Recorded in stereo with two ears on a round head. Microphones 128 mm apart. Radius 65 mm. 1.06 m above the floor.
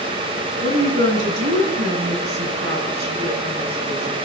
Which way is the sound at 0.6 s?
85° right.